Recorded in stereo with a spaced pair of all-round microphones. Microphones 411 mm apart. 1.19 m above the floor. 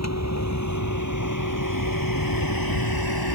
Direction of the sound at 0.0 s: 40° left (ahead or behind).